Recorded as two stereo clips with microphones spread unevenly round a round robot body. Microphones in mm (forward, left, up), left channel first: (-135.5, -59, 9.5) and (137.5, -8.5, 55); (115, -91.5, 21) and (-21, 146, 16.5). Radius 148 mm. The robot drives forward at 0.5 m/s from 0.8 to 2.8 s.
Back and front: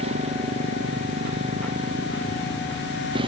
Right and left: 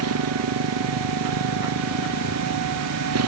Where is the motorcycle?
80° left; by 3.3 s 85° left.